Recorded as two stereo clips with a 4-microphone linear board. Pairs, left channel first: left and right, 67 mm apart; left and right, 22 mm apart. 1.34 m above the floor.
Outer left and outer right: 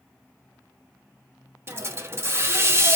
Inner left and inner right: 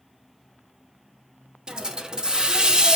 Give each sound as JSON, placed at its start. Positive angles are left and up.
{"t": 1.7, "sound": "a hiss", "side_deg": -40, "distance_m": 0.8}